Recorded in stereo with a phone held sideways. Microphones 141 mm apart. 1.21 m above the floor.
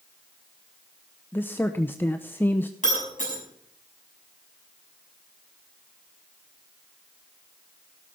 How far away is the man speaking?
About 0.6 m.